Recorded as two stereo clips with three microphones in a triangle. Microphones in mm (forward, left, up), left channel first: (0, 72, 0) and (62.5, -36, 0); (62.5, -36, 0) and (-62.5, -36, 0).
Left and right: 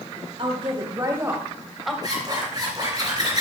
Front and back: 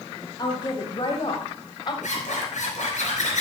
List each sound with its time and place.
0.4 s a woman speaking: 40° right, 1.5 m; by 1.9 s 30° left, 1.4 m
2.0 s a zipper: 5° right, 3.5 m